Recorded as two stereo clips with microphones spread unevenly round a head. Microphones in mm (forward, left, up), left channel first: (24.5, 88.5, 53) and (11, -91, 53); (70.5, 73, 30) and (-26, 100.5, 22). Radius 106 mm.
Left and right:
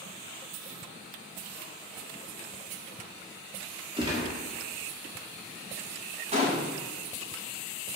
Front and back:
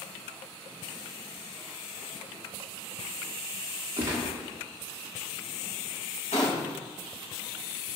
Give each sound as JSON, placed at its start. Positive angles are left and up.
{"t": 4.0, "sound": "a gunshot", "azimuth_deg": -135, "distance_m": 1.2}
{"t": 6.3, "sound": "a gunshot", "azimuth_deg": -40, "distance_m": 1.8}